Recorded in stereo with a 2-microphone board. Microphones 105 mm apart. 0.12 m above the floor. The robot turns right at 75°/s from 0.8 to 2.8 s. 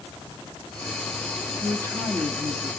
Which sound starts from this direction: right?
A woman speaking, at 1.6 s.